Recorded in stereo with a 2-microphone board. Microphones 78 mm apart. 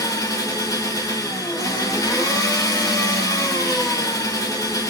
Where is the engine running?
50° left (ahead or behind), 1.1 m.